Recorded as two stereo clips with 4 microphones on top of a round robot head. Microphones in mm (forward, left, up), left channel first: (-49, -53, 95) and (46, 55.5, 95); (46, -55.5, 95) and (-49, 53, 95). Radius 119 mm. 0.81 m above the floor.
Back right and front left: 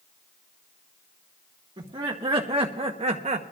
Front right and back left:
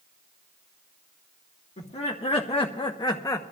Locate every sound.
1.8 s laughter: 5° right, 1.7 m; by 3.4 s 20° left, 1.0 m